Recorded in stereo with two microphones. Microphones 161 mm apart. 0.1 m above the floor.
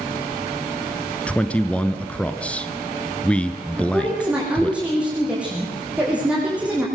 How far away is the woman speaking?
About 5 m.